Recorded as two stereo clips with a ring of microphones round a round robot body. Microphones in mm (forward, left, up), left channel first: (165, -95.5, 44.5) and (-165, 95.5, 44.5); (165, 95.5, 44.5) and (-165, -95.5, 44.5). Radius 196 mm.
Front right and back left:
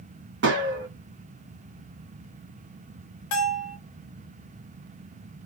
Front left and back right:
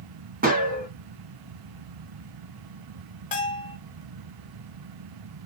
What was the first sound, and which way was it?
A gunshot, 165° left.